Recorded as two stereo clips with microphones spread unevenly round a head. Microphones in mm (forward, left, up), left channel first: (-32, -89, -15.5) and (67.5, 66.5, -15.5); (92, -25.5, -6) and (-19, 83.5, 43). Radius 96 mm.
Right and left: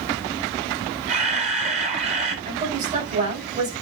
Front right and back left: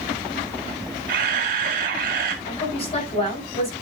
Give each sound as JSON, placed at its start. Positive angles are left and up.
{"t": 1.1, "sound": "a camera shutter", "azimuth_deg": 110, "distance_m": 2.0}
{"t": 2.5, "sound": "a woman speaking", "azimuth_deg": 5, "distance_m": 8.0}